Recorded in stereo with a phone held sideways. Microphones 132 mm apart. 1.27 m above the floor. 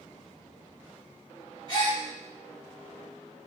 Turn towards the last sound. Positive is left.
turn(degrees=35)  # may be behind; listen again after turning